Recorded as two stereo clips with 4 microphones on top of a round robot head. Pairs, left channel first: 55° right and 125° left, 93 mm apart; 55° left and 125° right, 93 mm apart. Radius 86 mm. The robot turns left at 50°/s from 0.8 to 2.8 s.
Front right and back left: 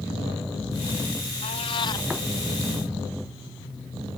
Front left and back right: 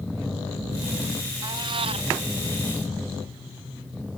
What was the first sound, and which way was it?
A cat meowing, 75° right.